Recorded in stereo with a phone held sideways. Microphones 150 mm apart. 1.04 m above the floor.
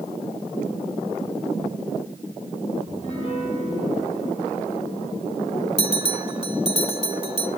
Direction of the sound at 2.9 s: 35° left (ahead or behind).